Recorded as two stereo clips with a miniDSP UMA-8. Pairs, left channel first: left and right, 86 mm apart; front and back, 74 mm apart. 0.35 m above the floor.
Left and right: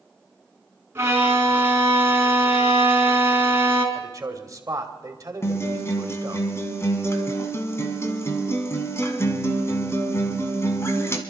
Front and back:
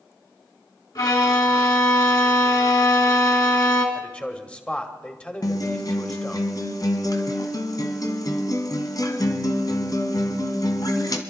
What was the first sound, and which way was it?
A violin, 30° right.